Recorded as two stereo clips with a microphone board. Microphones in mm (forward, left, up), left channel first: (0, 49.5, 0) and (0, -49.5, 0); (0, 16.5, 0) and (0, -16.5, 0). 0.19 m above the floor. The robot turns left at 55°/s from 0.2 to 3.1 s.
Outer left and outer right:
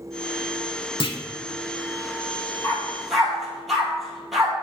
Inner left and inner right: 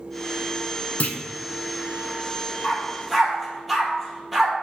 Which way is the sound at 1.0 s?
55° left (ahead or behind).